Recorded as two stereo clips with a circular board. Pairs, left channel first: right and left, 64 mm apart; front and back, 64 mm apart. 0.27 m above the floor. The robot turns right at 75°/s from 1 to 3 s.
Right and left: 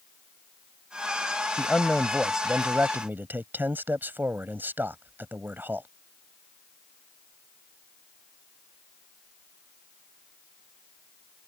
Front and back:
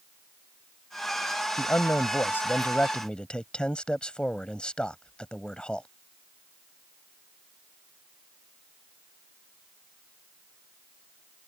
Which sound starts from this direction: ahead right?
A man speaking, at 1.6 s.